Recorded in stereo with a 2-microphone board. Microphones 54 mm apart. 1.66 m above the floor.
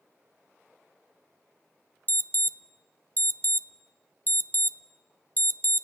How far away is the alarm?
About 0.7 m.